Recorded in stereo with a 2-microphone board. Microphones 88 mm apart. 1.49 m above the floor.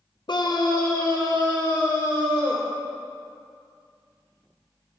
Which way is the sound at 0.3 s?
55° left (ahead or behind).